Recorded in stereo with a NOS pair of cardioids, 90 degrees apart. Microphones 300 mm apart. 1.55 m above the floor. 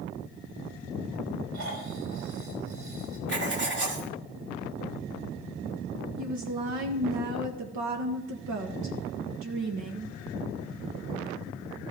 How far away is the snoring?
About 4.5 m.